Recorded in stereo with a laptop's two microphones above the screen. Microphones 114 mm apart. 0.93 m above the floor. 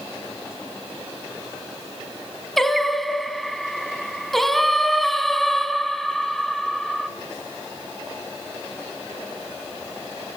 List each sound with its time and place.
2.6 s singing: centre (ahead or behind), 1.7 m